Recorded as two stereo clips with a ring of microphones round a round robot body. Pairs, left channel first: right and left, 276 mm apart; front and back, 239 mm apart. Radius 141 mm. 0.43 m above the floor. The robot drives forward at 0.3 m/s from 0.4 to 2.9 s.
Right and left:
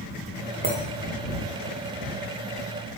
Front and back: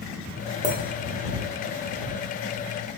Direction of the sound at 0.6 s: 125° left.